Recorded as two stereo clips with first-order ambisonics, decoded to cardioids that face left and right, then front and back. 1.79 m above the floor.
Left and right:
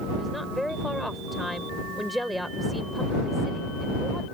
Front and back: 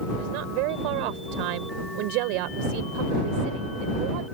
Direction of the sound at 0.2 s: Straight behind.